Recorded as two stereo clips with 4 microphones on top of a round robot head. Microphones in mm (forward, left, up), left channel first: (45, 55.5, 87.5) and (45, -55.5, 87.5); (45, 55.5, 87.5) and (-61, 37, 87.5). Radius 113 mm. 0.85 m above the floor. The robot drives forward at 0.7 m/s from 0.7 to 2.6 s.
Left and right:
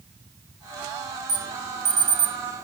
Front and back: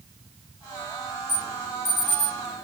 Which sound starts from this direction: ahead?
An alarm, at 1.3 s.